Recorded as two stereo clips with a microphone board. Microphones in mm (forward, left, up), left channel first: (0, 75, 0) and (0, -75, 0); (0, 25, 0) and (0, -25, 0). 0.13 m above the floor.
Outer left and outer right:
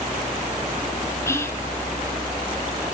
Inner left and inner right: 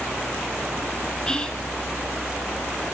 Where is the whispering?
20° left (ahead or behind), 1.7 m.